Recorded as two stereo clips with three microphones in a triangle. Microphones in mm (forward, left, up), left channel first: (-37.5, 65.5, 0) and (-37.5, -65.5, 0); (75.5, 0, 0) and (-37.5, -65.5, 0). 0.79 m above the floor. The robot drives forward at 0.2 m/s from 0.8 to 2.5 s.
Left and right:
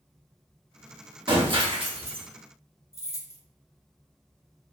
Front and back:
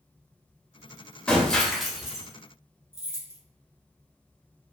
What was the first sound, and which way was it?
Breaking glass, 50° right.